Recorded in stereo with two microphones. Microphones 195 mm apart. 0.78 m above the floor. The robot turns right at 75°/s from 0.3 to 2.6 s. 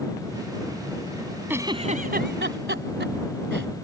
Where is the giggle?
10° right (ahead or behind); by 3.7 s 75° right (ahead or behind).